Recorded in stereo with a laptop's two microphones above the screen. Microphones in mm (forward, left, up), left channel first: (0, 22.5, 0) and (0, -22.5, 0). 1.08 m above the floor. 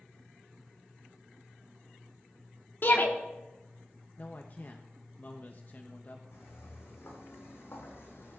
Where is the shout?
50° left (ahead or behind), 2.5 m.